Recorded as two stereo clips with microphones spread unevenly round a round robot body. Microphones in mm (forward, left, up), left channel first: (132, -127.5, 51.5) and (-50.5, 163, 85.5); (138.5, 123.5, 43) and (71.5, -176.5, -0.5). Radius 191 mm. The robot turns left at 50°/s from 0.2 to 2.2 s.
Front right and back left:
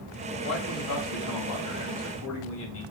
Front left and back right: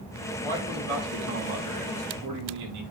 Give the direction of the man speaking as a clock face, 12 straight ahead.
1 o'clock.